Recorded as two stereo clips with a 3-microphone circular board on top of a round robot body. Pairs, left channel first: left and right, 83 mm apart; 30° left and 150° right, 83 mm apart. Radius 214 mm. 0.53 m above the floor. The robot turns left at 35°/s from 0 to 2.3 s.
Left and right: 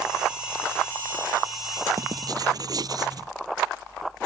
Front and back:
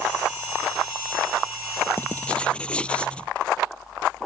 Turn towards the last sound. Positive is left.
turn(degrees=-50)